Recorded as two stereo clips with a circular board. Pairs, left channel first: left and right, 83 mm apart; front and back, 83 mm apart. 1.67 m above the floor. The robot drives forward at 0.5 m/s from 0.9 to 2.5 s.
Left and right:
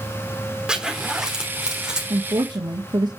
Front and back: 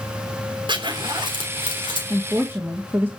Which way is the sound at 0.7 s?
170° right.